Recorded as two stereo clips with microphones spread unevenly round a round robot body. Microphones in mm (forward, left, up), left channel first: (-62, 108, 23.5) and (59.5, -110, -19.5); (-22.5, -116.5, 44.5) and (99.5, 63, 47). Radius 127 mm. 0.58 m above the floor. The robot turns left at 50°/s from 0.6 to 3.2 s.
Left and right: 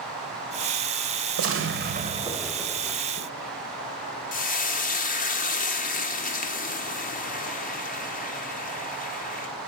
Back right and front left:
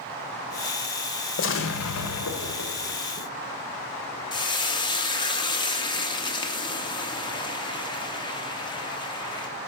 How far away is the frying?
About 1.0 m.